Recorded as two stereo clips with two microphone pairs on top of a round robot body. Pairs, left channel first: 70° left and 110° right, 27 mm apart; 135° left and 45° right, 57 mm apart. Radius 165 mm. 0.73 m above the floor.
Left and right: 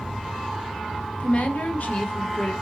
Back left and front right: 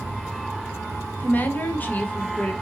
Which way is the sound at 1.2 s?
75° left.